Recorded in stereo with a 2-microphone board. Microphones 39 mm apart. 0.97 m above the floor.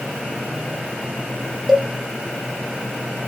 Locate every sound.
1.7 s a cowbell: 10° right (ahead or behind), 0.6 m